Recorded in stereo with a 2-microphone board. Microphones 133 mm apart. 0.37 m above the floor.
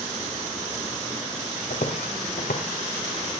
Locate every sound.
1.7 s footsteps: 80° left, 2 m; by 3.3 s 75° left (ahead or behind), 2.5 m